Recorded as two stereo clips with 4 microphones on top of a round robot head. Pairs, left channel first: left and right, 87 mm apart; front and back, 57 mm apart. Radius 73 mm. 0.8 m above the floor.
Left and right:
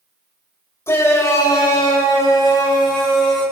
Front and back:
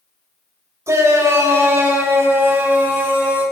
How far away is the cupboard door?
I don't hear a cupboard door.